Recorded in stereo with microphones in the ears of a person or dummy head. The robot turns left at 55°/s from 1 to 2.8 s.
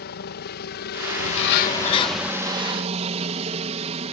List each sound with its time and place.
0.0 s a helicopter: 65° left; by 4.1 s 35° right
1.2 s a bird: 75° left; by 2.3 s 10° left